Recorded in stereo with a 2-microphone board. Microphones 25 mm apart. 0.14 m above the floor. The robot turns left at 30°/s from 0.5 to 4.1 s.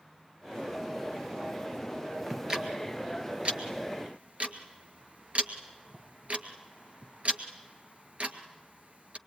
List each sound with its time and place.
2.3 s ticking: 20° right (ahead or behind), 1.9 m; by 9.2 s 60° right (ahead or behind), 1.9 m